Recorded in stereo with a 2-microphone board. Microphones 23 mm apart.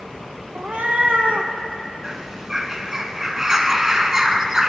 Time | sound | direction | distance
0.6 | a cat meowing | 70° right (ahead or behind) | 0.7 m
2.0 | a bird | 25° right (ahead or behind) | 0.5 m